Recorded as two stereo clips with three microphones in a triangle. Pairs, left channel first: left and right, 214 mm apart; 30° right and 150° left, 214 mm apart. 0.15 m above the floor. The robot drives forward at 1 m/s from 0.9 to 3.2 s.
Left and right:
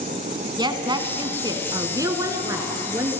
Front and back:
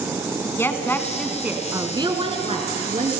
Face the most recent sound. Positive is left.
turn(degrees=-165)